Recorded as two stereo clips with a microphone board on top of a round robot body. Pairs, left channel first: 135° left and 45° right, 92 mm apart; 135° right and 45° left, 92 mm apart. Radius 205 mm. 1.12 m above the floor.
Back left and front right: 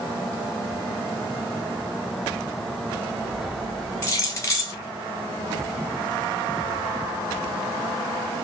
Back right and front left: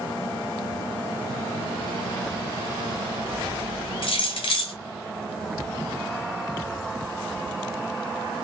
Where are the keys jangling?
165° right, 0.6 m.